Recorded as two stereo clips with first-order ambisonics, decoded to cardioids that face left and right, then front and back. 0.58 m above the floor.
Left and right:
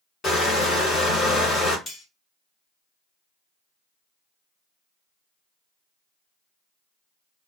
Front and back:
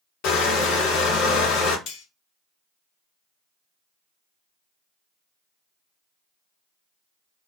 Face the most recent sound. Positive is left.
turn(degrees=30)